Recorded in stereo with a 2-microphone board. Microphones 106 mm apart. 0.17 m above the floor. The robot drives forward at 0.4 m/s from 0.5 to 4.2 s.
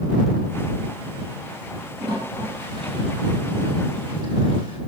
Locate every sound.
2.0 s a toilet flushing: 40° right (ahead or behind), 4 m; by 4.8 s 50° right (ahead or behind), 3.5 m